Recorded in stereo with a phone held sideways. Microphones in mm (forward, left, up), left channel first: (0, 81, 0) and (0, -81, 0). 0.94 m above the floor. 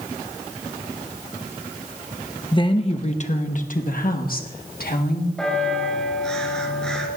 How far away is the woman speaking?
About 1.0 m.